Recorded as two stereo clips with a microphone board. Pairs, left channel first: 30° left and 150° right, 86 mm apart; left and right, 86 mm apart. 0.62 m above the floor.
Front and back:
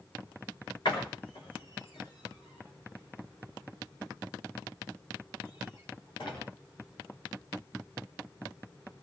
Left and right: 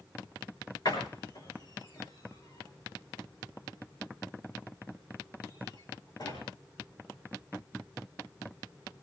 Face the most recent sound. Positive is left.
turn(degrees=55)